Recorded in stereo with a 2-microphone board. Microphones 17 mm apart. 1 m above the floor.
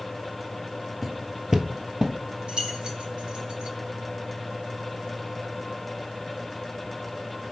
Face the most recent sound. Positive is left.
turn(degrees=-75)  # may be behind; listen again after turning